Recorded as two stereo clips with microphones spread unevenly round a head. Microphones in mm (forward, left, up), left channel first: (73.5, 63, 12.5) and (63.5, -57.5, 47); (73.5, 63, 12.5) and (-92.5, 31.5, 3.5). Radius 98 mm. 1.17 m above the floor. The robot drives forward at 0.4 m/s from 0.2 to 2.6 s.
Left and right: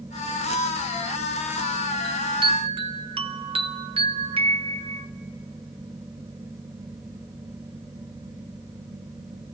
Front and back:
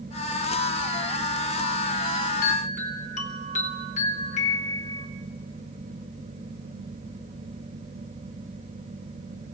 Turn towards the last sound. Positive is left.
turn(degrees=-45)